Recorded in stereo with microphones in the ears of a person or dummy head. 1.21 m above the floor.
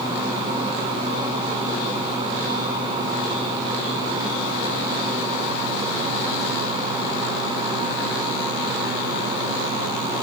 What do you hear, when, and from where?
Only background noise.